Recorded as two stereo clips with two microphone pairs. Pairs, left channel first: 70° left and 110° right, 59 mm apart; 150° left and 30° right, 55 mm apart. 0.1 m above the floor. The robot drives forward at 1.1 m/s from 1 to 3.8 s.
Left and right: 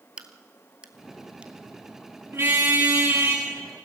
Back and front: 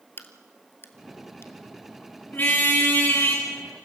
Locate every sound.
0.2 s a crack: straight behind, 1.3 m
2.3 s a car horn: 155° right, 6 m; by 3.5 s 160° right, 7 m